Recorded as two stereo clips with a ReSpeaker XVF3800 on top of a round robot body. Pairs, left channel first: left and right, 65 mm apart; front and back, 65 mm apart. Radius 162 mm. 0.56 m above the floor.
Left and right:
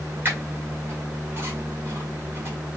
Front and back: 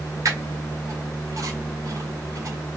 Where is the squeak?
145° right, 1.4 m.